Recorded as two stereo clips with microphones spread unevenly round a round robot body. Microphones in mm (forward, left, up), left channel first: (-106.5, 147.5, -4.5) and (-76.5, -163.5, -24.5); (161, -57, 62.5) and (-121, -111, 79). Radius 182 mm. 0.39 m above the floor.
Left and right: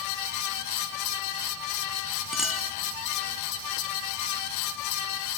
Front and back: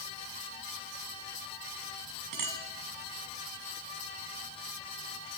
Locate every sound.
2.3 s a clink: 175° right, 2 m